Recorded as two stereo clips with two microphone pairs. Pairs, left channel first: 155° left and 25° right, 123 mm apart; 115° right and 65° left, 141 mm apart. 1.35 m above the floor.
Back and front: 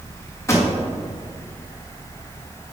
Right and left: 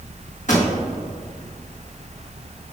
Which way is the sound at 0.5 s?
140° right.